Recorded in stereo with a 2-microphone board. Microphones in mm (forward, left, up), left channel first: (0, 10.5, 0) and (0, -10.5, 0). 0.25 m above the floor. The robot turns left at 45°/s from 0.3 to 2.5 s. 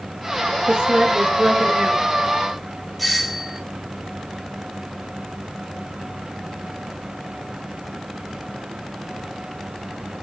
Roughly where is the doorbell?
Centre.